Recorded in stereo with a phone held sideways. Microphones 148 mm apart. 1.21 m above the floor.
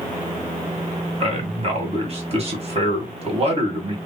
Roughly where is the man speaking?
Right.